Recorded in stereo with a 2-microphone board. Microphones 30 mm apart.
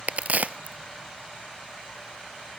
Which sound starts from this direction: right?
A crack, at 0.1 s.